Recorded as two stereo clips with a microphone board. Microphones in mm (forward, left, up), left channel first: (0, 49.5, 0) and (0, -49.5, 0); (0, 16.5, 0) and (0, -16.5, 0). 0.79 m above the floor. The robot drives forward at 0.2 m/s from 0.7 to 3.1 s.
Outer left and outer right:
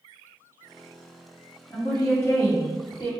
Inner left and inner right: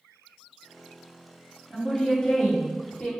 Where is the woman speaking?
25° left (ahead or behind), 1.9 m.